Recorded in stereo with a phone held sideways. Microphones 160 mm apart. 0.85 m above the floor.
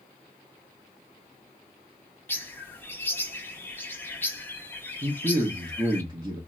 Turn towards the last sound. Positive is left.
turn(degrees=-25)  # may be behind; listen again after turning